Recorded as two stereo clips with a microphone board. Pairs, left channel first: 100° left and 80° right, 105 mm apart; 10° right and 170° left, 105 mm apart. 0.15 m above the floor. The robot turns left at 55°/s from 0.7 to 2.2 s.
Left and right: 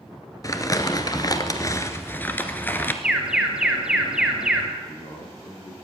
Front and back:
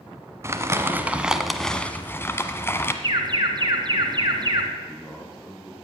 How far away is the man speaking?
About 7 m.